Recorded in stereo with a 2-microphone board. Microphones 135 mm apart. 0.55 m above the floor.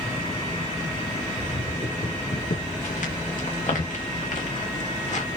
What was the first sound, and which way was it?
Footsteps, 55° left (ahead or behind).